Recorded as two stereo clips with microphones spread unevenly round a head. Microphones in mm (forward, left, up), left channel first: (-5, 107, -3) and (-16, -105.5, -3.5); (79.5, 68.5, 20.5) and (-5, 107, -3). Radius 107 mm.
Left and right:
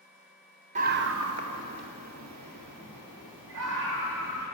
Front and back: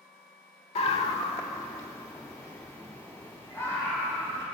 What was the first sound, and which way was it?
A scream, 40° right.